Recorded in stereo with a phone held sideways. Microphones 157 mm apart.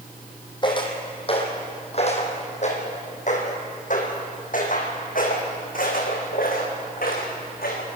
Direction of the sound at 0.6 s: 30° left (ahead or behind).